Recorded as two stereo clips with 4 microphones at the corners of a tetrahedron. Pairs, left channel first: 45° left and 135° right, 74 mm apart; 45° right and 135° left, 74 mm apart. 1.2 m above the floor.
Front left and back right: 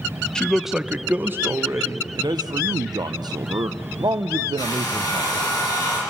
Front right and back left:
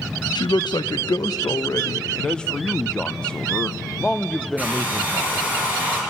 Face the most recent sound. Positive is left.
turn(degrees=70)